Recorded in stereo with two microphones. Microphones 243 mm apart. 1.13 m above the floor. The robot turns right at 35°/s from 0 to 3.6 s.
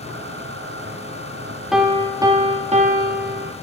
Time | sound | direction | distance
1.7 | a piano | 175° right | 0.7 m